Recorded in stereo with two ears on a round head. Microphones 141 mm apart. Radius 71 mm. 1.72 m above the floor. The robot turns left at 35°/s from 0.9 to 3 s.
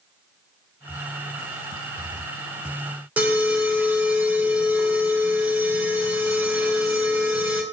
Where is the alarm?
10° right (ahead or behind), 2.5 m.